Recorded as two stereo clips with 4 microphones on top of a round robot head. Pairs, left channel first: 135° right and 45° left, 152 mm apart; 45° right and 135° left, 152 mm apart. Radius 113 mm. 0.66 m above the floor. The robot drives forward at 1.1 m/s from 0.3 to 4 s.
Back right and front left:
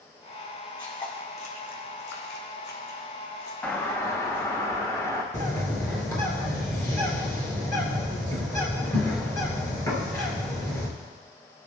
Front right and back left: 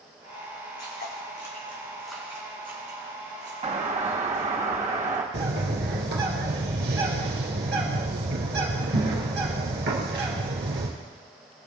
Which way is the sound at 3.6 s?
145° left.